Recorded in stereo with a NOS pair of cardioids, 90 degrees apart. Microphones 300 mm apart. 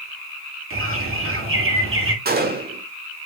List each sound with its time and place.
0.7 s a bird: 45° right, 2.5 m
2.2 s a gunshot: 30° right, 1.7 m